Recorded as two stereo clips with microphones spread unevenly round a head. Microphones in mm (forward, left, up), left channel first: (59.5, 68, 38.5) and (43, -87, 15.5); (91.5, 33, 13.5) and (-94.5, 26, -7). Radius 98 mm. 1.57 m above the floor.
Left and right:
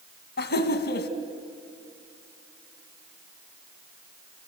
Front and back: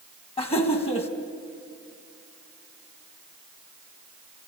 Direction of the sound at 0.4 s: 65° left.